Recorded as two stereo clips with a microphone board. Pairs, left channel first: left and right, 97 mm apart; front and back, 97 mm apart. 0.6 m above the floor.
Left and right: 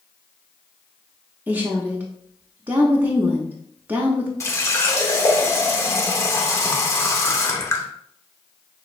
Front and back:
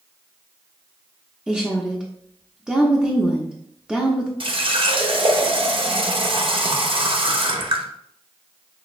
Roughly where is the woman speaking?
Behind right.